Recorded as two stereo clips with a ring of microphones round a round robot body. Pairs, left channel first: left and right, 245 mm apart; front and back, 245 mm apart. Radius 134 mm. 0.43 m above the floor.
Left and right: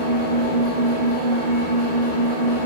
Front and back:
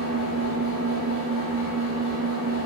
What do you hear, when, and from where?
0.0 s an engine running: 40° right, 2 m